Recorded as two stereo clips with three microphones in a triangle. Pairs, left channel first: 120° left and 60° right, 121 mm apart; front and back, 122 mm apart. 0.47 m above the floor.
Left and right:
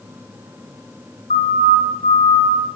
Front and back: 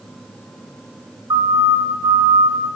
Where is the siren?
125° left, 6.5 m; by 2.6 s 130° left, 6.5 m.